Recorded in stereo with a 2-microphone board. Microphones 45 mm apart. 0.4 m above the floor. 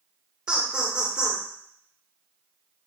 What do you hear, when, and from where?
0.5 s laughter: 20° right (ahead or behind), 0.9 m